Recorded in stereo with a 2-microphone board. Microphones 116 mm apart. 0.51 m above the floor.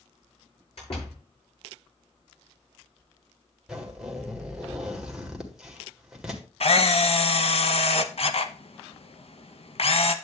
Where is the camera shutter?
60° left (ahead or behind), 0.8 m.